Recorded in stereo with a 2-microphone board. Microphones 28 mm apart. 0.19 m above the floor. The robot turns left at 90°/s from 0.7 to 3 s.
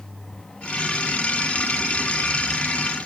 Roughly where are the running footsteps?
No running footsteps in this recording.